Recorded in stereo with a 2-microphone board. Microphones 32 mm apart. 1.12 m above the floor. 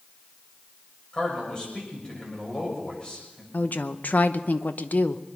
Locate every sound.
1.1 s a man speaking: 30° left (ahead or behind), 6.5 m
3.5 s a woman speaking: 65° left (ahead or behind), 0.8 m